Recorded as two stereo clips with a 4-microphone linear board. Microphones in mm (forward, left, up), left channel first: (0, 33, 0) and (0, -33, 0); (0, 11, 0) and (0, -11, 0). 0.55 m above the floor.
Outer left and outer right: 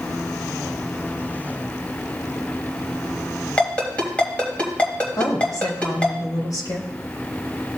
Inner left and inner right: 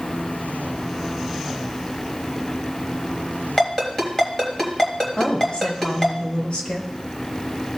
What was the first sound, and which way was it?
A ringtone, 20° left (ahead or behind).